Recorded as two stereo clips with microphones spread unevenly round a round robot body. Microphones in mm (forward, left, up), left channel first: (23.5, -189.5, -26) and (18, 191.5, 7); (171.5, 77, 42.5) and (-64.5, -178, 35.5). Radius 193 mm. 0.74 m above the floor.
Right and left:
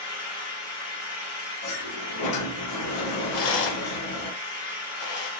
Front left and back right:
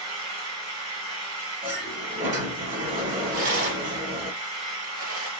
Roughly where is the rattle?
Right.